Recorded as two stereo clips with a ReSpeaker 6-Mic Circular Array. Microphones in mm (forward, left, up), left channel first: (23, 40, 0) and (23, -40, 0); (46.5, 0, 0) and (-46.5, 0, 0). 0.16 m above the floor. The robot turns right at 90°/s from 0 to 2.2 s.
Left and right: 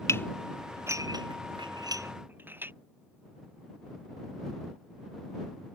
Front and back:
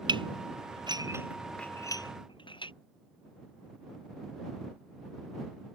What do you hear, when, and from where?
0.1 s dishes clattering: 145° left; by 2.7 s 25° right